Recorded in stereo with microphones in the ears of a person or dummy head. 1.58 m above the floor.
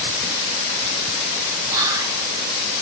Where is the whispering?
20° right (ahead or behind), 4 m.